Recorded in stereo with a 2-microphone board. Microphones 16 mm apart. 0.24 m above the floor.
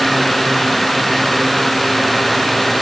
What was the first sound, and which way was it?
Only background noise.